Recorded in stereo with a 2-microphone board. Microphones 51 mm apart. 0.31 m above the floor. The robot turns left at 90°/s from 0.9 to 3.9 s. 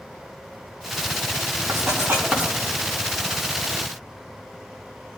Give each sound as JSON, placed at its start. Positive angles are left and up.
{"t": 1.7, "sound": "writing", "side_deg": -60, "distance_m": 3.5}